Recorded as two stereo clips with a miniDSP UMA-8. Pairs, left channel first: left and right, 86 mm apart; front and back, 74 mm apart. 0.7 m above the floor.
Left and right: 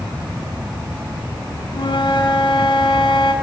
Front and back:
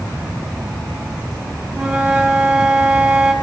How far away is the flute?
About 6 m.